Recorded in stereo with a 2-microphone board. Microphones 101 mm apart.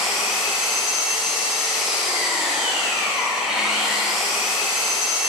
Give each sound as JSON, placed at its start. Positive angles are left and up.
{"t": 0.0, "sound": "an engine running", "side_deg": -5, "distance_m": 1.4}